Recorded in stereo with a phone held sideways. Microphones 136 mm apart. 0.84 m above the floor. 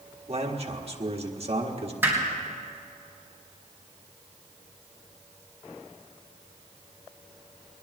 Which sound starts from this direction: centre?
Hammering, at 2.0 s.